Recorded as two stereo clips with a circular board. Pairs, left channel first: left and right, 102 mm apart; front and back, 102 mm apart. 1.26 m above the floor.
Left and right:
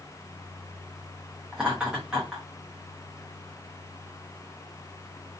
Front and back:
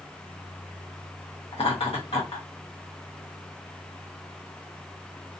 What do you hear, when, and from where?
1.5 s laughter: 10° right, 0.6 m